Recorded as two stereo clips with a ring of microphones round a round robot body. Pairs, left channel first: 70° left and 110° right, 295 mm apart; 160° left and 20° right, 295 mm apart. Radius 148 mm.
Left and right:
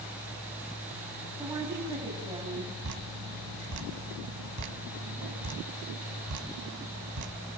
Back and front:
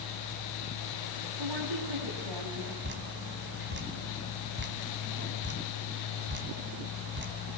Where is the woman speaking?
35° right, 6 m.